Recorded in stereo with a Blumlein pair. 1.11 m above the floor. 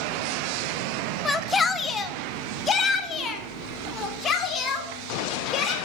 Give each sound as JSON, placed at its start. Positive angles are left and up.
{"t": 1.2, "sound": "a shout", "azimuth_deg": 15, "distance_m": 0.9}